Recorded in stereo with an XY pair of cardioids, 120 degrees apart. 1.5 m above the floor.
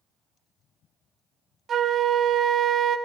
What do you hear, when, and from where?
1.7 s a flute: 45° right, 0.6 m